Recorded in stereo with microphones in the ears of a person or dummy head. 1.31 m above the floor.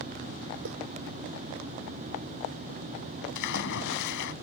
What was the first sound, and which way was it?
Footsteps, 65° right (ahead or behind).